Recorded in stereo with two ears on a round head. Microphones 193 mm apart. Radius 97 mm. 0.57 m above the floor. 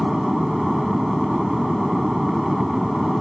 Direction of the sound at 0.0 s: Centre (ahead or behind).